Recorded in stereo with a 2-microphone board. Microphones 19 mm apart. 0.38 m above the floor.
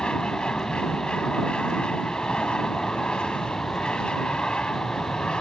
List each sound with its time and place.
0.0 s an aircraft: 60° left (ahead or behind)